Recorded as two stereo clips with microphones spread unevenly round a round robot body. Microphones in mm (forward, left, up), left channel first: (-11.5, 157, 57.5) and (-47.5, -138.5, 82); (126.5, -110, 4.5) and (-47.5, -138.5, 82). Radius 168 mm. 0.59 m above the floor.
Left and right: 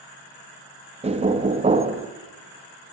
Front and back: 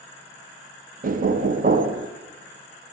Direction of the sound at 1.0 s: 140° right.